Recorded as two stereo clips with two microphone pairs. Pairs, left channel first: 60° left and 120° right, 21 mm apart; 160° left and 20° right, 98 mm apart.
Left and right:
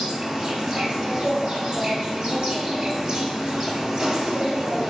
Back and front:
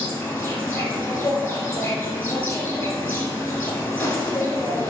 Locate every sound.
0.0 s an insect: 145° right, 1.0 m